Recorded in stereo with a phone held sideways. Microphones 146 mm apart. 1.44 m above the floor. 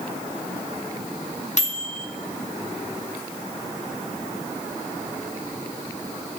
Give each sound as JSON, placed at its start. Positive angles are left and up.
{"t": 1.6, "sound": "a microwave", "side_deg": 55, "distance_m": 1.1}